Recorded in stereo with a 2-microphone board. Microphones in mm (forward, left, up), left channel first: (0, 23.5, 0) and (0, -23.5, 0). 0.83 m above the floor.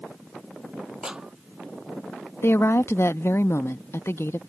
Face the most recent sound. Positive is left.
turn(degrees=60)  # may be behind; listen again after turning